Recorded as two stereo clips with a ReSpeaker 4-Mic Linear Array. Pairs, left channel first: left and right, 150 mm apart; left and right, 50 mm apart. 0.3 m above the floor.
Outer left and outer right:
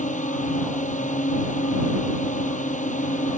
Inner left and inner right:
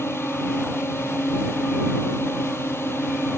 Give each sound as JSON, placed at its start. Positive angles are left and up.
{"t": 0.0, "sound": "a drone", "side_deg": 60}